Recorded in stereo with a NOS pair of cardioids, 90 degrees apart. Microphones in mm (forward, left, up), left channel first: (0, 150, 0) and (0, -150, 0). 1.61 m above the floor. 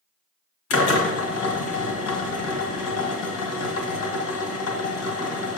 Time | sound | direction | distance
0.7 | a drill | 65° left | 1.6 m